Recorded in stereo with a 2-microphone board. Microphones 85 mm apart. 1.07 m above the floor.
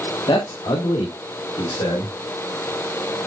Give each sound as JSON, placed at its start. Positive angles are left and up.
{"t": 0.3, "sound": "a man speaking", "side_deg": 75, "distance_m": 1.8}